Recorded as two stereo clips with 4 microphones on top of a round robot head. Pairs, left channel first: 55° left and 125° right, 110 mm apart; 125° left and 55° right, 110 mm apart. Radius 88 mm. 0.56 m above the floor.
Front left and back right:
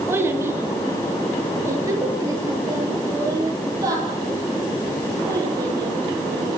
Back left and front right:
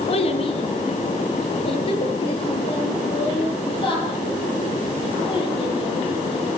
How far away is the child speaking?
About 4 m.